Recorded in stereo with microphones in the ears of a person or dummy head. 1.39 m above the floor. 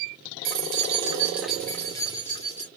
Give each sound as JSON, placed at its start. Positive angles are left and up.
{"t": 0.5, "sound": "keys jangling", "side_deg": -55, "distance_m": 0.7}